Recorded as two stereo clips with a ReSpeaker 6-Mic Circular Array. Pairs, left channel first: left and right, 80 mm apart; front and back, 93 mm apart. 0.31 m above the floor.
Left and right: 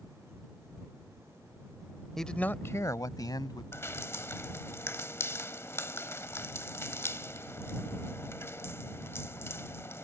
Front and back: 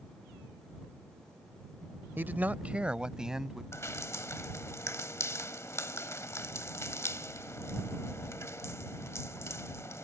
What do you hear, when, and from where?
2.2 s a man speaking: 170° left; by 3.6 s 95° left
3.7 s dripping: 45° left